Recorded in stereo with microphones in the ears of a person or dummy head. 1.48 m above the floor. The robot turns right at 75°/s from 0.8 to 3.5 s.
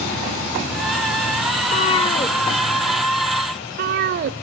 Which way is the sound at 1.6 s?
40° left (ahead or behind).